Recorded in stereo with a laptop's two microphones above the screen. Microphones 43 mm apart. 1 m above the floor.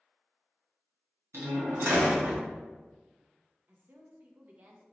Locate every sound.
1.3 s a door slam: 85° right, 1.0 m
3.7 s a woman speaking: 50° right (ahead or behind), 0.7 m